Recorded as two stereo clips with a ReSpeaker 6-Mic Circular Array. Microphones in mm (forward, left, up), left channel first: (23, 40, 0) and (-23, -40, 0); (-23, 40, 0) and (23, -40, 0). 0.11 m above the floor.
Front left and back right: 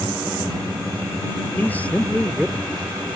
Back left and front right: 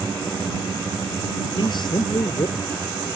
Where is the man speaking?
125° left; by 3.2 s 165° left.